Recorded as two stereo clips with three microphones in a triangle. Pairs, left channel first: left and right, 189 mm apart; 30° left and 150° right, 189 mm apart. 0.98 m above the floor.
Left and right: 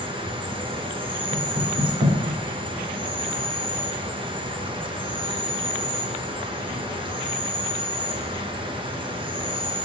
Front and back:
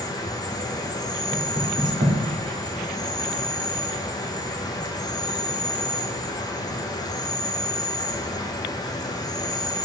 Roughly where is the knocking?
Right.